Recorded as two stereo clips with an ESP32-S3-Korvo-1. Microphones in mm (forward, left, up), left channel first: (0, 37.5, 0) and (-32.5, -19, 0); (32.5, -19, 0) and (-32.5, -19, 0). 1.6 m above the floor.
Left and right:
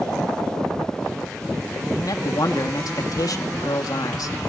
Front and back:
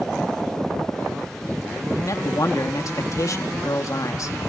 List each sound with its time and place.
1.9 s a man speaking: 35° left, 3 m